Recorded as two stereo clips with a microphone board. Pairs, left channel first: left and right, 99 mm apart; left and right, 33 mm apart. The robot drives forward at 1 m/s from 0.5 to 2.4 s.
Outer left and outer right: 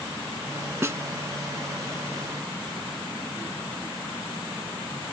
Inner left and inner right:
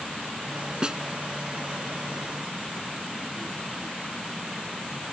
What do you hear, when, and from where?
0.8 s a snare drum: 25° right (ahead or behind)